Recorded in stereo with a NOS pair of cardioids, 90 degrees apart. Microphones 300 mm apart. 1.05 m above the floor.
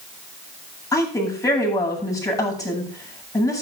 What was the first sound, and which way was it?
A woman speaking, 10° left.